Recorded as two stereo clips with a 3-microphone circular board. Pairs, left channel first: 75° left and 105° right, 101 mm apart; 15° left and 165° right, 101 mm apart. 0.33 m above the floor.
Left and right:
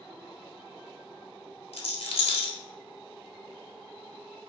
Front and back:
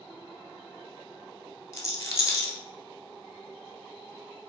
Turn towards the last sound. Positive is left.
turn(degrees=75)